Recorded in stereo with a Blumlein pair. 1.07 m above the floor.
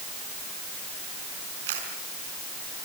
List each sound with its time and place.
1.7 s a camera shutter: 55° right, 4.5 m